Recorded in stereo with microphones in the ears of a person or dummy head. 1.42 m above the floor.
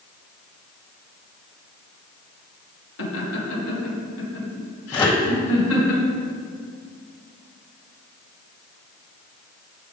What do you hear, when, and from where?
3.0 s laughter: 75° left (ahead or behind), 2.5 m; by 5.9 s 85° left, 4 m
4.9 s a microwave: 20° left (ahead or behind), 0.7 m